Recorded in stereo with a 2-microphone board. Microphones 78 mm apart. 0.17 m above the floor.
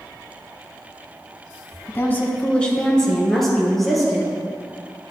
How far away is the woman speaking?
About 1.1 m.